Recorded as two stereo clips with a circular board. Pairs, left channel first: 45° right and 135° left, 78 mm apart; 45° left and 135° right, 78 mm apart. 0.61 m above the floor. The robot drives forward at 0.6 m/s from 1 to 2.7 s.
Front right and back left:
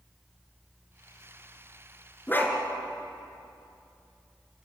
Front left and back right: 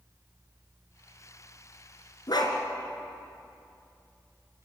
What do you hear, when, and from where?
2.3 s a dog barking: 20° left, 2.5 m